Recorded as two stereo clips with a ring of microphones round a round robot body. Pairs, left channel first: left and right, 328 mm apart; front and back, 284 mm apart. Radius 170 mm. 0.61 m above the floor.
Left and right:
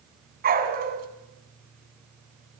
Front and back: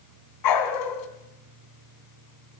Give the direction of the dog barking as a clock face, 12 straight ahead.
1 o'clock.